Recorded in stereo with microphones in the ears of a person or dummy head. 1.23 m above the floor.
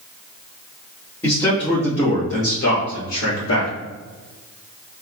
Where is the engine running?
I don't hear an engine running.